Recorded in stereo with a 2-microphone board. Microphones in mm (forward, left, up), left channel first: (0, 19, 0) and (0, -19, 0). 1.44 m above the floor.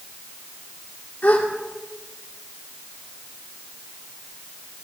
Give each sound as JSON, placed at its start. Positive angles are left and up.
{"t": 1.2, "sound": "a gasp", "side_deg": 50, "distance_m": 1.7}